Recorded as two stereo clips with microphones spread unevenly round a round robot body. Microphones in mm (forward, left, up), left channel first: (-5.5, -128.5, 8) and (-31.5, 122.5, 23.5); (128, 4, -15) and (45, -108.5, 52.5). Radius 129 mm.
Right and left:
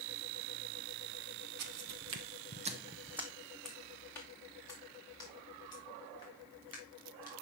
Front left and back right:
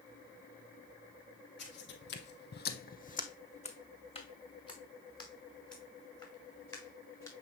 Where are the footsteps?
110° left, 1.2 m; by 7.3 s 15° right, 6 m.